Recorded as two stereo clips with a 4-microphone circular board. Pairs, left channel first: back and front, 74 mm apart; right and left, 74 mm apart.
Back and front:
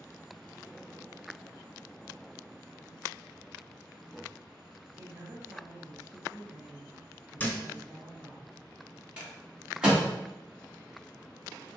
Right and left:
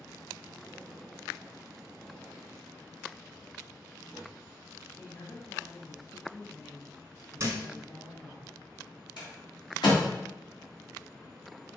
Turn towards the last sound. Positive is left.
turn(degrees=-80)